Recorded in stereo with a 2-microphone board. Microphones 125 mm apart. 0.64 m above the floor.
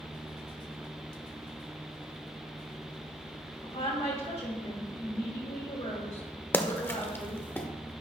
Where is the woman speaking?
55° left (ahead or behind), 2 m.